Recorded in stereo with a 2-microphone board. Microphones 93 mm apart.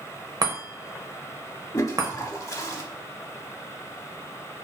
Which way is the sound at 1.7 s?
35° left (ahead or behind).